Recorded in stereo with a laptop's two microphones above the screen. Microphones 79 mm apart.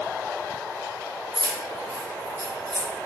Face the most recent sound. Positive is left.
turn(degrees=-45)  # may be behind; listen again after turning